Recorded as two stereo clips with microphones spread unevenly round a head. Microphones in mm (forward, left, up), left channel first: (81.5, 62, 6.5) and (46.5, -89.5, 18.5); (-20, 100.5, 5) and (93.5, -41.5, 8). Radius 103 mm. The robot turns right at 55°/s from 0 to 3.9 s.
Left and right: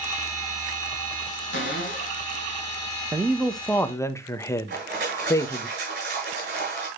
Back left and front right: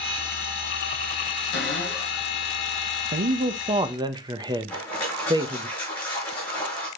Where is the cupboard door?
95° left, 2 m; by 2.2 s 135° left, 2 m.